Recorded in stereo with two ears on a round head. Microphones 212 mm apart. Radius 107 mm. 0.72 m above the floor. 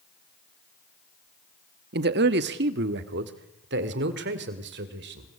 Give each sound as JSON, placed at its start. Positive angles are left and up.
{"t": 1.9, "sound": "a man speaking", "side_deg": -45, "distance_m": 1.2}